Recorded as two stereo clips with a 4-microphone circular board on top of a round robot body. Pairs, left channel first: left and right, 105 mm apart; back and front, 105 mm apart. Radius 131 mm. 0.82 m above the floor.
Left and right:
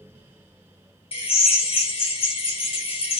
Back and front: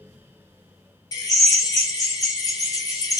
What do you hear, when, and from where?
1.1 s a drill: 120° left, 2.5 m